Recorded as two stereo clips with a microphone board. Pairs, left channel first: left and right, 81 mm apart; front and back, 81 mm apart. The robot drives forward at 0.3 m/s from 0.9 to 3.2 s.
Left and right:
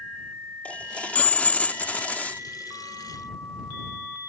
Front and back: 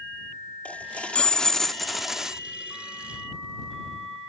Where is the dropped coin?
45° left; by 2.4 s 120° left.